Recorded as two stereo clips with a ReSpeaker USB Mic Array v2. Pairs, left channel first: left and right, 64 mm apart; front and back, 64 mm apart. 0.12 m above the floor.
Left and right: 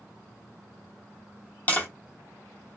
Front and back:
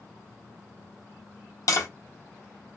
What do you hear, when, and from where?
1.7 s tapping: 25° left, 0.9 m